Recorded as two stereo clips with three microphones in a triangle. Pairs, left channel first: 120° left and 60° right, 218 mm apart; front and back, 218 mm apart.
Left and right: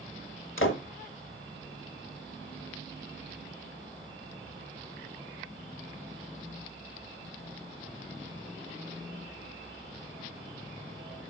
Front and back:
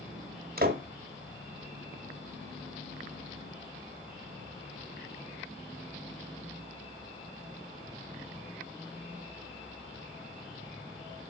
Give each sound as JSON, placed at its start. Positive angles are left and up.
{"t": 0.6, "sound": "a door slam", "azimuth_deg": 135, "distance_m": 1.3}